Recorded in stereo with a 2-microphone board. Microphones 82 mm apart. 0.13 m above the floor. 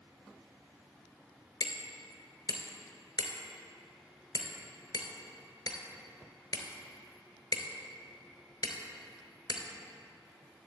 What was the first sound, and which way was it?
Hammering, 55° left (ahead or behind).